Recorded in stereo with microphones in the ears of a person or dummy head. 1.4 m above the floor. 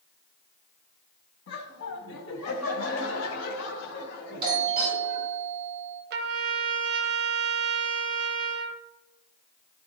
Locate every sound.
1.5 s laughter: 70° left (ahead or behind), 1.2 m; by 5.3 s 60° left (ahead or behind), 3 m
4.4 s a doorbell: 25° right (ahead or behind), 3.5 m
6.1 s a trumpet: 55° right (ahead or behind), 0.7 m